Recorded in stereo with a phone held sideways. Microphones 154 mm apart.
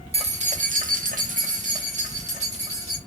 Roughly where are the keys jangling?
Right.